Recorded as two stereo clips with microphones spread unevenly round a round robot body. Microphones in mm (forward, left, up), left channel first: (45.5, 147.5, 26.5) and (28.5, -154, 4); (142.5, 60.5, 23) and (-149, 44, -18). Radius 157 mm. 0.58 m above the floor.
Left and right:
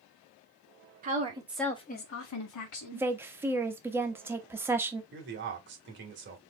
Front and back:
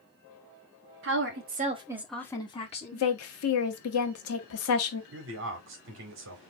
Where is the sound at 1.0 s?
145° right, 1.2 m; by 3.1 s 70° left, 1.6 m.